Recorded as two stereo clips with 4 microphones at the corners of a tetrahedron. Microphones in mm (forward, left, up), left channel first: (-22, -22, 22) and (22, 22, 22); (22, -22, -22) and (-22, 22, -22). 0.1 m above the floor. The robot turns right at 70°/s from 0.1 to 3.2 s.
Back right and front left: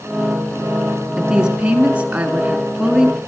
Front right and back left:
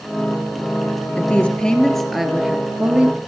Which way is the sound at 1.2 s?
25° right.